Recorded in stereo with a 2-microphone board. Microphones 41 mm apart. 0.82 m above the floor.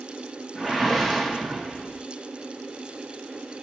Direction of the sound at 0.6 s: 5° left (ahead or behind).